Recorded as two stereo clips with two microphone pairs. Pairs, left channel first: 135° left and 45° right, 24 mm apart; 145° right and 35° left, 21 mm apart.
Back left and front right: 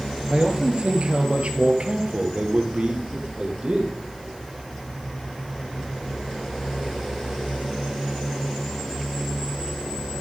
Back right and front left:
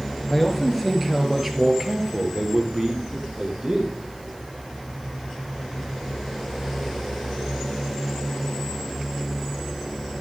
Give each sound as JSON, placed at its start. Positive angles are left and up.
{"t": 0.3, "sound": "a man speaking", "azimuth_deg": -65, "distance_m": 2.5}